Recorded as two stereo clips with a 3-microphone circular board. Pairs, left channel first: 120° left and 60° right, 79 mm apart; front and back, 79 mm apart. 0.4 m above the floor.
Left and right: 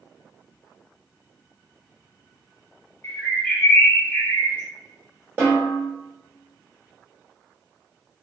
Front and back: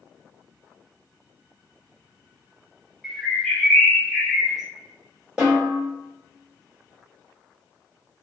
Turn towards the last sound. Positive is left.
turn(degrees=-110)